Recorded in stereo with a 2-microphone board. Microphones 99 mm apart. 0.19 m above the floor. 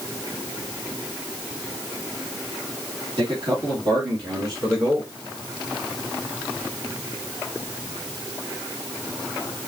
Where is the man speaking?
55° right (ahead or behind), 3 m; by 5.1 s 35° right (ahead or behind), 2.5 m.